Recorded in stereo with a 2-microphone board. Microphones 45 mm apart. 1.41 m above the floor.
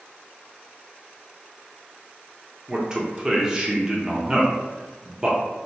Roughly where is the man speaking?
Centre.